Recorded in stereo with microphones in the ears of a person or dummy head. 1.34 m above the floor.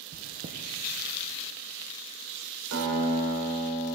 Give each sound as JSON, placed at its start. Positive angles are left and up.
{"t": 0.1, "sound": "chewing", "side_deg": -45, "distance_m": 0.9}
{"t": 2.7, "sound": "a guitar", "side_deg": -75, "distance_m": 3.0}